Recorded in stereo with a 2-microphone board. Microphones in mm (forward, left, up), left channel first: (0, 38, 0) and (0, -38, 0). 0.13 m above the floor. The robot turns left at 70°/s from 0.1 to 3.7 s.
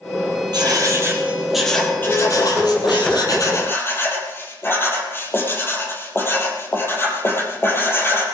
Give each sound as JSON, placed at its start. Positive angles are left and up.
{"t": 0.5, "sound": "writing", "azimuth_deg": -105, "distance_m": 4.5}